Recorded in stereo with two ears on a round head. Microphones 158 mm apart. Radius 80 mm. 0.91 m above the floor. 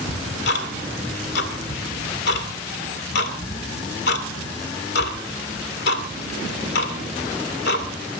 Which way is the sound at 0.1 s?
65° left (ahead or behind).